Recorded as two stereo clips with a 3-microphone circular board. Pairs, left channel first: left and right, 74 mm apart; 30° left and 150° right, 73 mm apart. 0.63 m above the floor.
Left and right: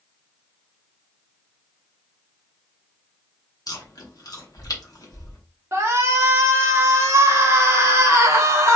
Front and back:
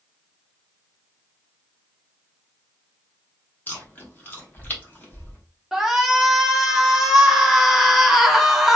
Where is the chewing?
90° left, 0.8 m.